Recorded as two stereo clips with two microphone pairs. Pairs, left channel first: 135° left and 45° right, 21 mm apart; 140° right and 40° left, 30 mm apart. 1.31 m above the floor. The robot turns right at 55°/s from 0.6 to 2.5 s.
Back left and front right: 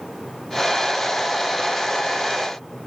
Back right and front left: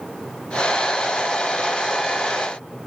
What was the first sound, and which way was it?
Only background noise.